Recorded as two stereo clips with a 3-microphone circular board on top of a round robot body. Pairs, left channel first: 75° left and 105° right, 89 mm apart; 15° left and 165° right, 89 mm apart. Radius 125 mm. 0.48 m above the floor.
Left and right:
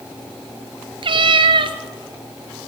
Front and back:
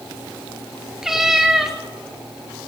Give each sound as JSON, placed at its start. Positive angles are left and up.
{"t": 1.0, "sound": "a cat meowing", "azimuth_deg": -80, "distance_m": 0.9}